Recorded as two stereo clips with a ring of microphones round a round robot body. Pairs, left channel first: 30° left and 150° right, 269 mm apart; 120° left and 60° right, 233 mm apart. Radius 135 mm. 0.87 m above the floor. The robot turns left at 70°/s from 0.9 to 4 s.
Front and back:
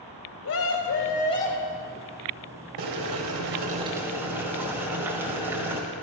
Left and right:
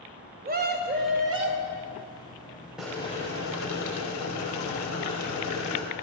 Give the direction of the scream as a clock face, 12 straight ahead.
12 o'clock.